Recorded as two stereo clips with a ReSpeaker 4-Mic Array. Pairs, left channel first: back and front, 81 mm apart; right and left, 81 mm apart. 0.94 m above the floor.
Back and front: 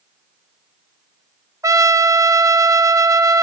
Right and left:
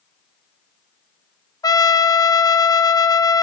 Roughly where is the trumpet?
Ahead right.